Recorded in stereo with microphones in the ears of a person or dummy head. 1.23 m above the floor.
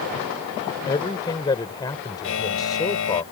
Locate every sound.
0.9 s a man speaking: 20° left (ahead or behind)
2.2 s a buzzer: 85° left